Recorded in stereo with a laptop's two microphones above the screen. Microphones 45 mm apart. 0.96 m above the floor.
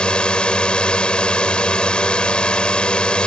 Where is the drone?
25° left (ahead or behind).